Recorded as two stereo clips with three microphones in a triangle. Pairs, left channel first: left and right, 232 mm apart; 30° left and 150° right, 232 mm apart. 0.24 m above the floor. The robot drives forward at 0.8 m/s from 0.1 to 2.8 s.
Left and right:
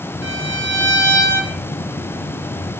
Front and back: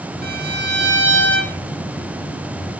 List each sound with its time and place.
0.2 s a violin: 105° right, 2.5 m; by 1.6 s 130° right, 3 m